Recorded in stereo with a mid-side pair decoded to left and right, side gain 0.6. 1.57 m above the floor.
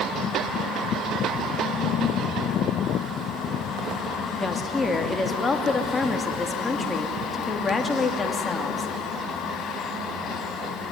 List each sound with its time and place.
4.4 s a woman speaking: 20° left, 2.5 m